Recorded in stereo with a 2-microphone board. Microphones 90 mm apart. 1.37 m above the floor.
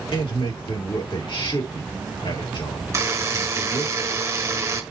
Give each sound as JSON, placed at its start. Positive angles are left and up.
{"t": 0.1, "sound": "a man speaking", "side_deg": 75, "distance_m": 3.0}
{"t": 2.9, "sound": "a buzzer", "side_deg": -30, "distance_m": 1.3}